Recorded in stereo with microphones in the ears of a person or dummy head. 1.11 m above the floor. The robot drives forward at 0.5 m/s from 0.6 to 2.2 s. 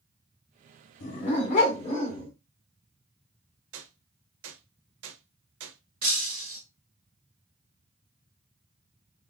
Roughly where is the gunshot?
Right.